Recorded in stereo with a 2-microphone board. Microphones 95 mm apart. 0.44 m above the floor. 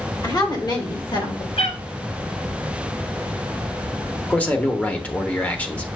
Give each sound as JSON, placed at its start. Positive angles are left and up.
{"t": 0.2, "sound": "a woman speaking", "side_deg": 40, "distance_m": 1.9}
{"t": 1.6, "sound": "a cat meowing", "side_deg": 85, "distance_m": 1.5}
{"t": 4.3, "sound": "a man speaking", "side_deg": 15, "distance_m": 0.9}